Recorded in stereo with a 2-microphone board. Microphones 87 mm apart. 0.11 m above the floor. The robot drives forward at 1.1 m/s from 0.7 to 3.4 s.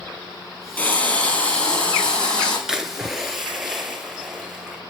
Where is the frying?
20° left (ahead or behind), 2.5 m; by 2.6 s 10° left (ahead or behind), 4.5 m.